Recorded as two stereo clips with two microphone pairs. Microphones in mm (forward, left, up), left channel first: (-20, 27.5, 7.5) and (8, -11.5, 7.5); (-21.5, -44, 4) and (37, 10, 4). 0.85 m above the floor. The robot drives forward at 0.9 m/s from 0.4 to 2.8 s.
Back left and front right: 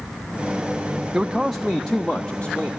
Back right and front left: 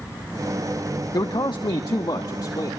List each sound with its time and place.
1.1 s a man speaking: 130° right, 0.7 m; by 2.7 s 165° right, 1.8 m